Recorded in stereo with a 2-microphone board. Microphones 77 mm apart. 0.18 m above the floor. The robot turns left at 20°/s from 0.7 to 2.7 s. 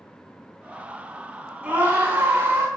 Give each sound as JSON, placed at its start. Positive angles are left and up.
{"t": 1.6, "sound": "a scream", "side_deg": -20, "distance_m": 1.9}